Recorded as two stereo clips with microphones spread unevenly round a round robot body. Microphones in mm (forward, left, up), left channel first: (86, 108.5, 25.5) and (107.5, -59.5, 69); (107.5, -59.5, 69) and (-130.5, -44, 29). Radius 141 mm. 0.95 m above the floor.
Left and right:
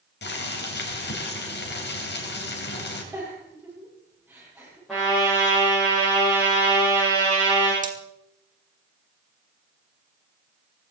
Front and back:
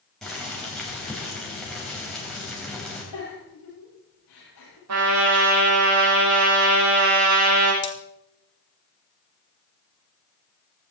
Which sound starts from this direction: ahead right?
Cutlery clinking, at 7.8 s.